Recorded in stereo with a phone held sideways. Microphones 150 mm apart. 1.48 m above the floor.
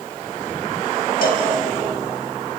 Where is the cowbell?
80° left, 4 m.